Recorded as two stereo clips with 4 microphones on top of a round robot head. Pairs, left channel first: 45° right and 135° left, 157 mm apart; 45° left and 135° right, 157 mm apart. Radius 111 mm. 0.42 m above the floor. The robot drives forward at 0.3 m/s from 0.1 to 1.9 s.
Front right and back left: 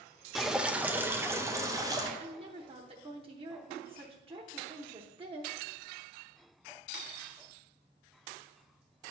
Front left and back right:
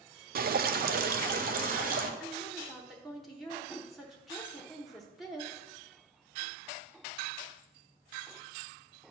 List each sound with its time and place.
0.3 s dripping: 140° right, 0.6 m; by 2.1 s 160° right, 0.9 m
2.2 s a woman speaking: 140° left, 1.0 m